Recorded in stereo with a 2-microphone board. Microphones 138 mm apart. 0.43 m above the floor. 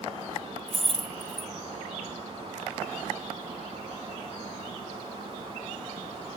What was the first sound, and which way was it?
Keys jangling, 5° left (ahead or behind).